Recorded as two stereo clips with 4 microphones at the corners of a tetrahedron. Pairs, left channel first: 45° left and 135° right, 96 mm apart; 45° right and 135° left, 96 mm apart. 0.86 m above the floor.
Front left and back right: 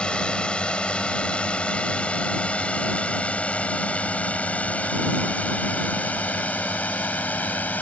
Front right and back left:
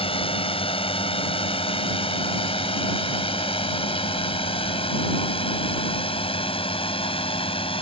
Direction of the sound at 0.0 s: 35° right.